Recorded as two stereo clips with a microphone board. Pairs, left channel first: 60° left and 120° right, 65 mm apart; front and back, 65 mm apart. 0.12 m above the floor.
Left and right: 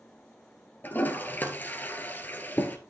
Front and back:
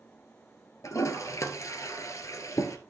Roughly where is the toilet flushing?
Ahead.